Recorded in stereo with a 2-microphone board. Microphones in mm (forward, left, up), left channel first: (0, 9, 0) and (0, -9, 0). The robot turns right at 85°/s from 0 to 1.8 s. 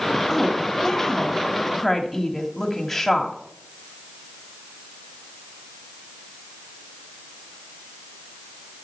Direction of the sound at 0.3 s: 15° left (ahead or behind).